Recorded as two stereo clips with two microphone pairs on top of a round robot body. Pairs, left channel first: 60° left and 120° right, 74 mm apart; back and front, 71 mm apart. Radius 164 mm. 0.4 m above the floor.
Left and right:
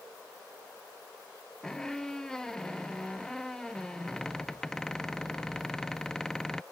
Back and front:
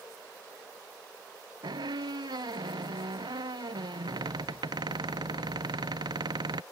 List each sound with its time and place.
1.6 s a squeak: 25° right